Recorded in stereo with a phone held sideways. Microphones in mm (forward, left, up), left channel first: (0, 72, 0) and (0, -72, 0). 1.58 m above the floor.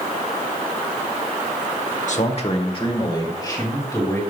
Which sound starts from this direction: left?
A man speaking, at 2.1 s.